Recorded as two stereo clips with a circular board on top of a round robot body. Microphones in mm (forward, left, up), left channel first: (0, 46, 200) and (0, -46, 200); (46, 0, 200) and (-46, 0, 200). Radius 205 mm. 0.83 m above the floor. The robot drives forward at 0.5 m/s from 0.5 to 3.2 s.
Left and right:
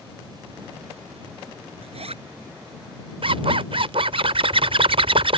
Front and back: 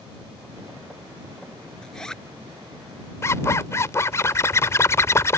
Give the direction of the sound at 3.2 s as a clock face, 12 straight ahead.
2 o'clock.